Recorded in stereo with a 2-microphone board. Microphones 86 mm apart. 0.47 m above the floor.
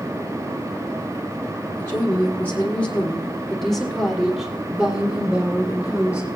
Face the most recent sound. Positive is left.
turn(degrees=-15)  # may be behind; listen again after turning